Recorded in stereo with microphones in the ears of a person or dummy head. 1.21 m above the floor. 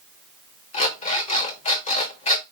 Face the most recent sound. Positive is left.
turn(degrees=40)  # may be behind; listen again after turning